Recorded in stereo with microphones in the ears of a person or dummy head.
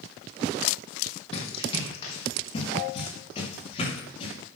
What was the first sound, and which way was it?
Running footsteps, 40° left (ahead or behind).